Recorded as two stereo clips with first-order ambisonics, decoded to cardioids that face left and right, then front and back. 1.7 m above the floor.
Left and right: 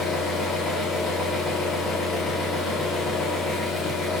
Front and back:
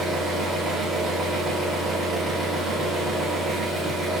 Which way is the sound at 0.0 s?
110° left.